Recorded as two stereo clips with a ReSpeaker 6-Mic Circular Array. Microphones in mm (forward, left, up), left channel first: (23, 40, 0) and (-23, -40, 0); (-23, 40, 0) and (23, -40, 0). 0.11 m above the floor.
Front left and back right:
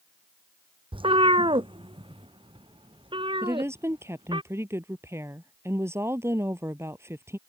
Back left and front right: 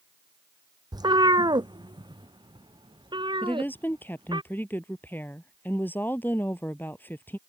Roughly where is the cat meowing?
Right.